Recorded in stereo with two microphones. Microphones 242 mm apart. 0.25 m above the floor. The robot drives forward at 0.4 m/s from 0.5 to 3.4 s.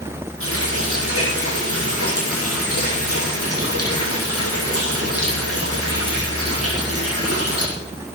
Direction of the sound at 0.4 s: 60° left (ahead or behind).